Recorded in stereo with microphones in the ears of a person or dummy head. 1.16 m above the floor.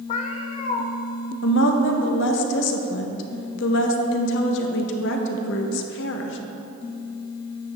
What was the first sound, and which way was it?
A cat meowing, 40° left (ahead or behind).